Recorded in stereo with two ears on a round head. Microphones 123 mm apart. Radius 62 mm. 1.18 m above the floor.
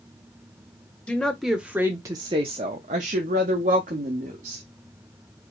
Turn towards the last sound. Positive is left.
turn(degrees=-60)  # may be behind; listen again after turning